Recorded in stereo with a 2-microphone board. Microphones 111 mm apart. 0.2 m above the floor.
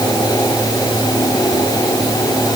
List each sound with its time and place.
Only background noise.